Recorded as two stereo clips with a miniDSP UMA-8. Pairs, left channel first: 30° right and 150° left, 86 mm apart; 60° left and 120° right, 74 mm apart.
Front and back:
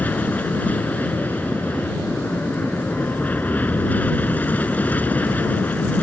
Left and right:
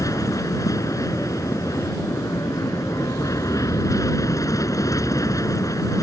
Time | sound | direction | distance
0.0 | an aircraft | 35° left | ?